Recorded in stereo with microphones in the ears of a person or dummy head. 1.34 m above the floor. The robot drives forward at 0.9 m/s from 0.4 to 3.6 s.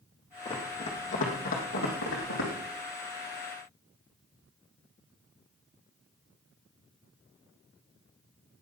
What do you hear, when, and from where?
0.5 s running footsteps: 30° left (ahead or behind), 3.5 m; by 2.5 s 70° left (ahead or behind), 3.5 m